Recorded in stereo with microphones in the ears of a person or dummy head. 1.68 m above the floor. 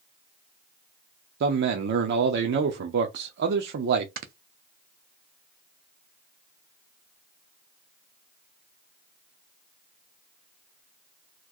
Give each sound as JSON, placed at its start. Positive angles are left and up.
{"t": 1.4, "sound": "a man speaking", "side_deg": -50, "distance_m": 0.6}
{"t": 4.2, "sound": "snoring", "side_deg": -40, "distance_m": 0.6}